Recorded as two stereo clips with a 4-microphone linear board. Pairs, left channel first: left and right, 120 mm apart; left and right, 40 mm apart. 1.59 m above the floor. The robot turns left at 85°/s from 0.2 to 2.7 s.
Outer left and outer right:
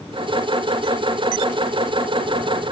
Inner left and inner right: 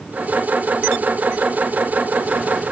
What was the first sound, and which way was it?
Only background noise.